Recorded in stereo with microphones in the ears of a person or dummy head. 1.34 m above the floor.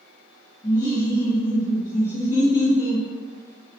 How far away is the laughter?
About 1.0 m.